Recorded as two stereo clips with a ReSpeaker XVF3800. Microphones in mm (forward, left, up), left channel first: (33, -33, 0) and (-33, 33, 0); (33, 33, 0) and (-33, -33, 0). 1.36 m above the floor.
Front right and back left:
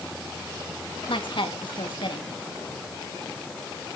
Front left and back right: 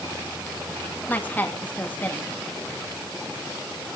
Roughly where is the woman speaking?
Ahead right.